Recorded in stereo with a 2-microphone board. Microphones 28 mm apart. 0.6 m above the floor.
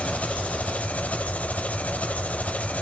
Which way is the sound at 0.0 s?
55° left (ahead or behind).